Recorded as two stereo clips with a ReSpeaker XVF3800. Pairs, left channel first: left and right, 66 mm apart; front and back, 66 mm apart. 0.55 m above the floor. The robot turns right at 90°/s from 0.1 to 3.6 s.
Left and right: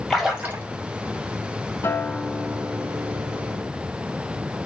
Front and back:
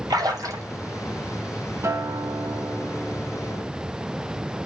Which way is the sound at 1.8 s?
135° left.